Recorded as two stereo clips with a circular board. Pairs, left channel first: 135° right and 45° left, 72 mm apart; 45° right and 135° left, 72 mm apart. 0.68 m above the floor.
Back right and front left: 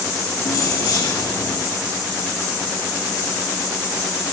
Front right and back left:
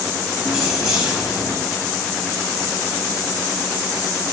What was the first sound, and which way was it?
Keys jangling, 150° right.